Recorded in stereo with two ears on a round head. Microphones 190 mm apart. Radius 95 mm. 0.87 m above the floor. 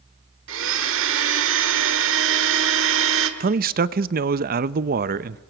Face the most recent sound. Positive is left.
turn(degrees=-45)  # may be behind; listen again after turning